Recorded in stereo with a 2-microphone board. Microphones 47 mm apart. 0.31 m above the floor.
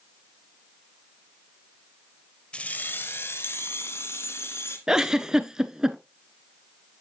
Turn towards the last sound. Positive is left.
turn(degrees=-15)  # may be behind; listen again after turning